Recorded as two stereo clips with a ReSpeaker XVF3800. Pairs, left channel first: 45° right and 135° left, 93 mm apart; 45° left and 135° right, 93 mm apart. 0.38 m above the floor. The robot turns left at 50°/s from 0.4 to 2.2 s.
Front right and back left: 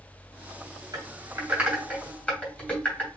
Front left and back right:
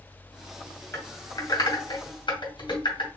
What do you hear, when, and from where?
0.9 s typing on a keyboard: 90° left, 2.5 m; by 3.1 s 25° left, 2.5 m